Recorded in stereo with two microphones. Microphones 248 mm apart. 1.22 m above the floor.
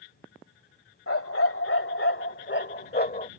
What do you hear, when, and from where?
1.1 s a dog barking: 65° left (ahead or behind); by 3.3 s 35° left (ahead or behind)